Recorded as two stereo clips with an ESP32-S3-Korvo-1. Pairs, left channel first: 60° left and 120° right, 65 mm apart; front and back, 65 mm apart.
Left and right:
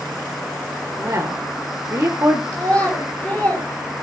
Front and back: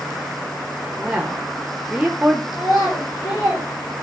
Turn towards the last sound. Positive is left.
turn(degrees=-10)